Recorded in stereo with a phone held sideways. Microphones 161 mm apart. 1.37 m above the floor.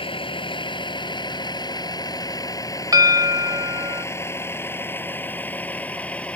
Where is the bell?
25° right (ahead or behind).